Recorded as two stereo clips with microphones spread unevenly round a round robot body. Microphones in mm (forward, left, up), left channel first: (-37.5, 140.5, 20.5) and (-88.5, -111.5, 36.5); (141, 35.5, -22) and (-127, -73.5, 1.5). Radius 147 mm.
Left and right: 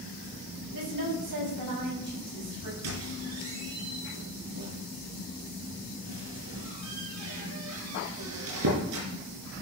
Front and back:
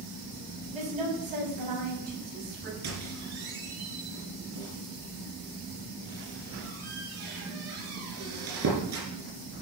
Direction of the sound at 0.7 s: 90° right.